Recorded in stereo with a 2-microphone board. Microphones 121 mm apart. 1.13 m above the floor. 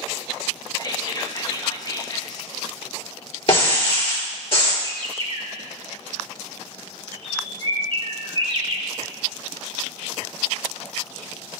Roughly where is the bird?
Right.